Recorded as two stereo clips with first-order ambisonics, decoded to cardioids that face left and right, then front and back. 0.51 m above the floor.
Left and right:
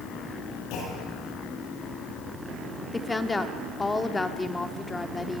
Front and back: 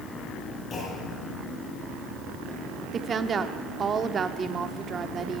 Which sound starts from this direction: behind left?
A woman speaking, at 2.9 s.